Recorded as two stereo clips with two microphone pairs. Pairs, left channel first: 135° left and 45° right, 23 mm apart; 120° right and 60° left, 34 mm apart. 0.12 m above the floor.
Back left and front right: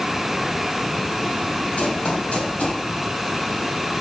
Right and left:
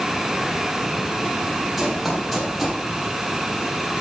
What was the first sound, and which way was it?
Running footsteps, 145° left.